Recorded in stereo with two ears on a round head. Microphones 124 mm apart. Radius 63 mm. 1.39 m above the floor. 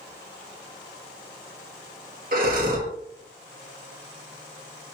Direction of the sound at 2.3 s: 65° right (ahead or behind).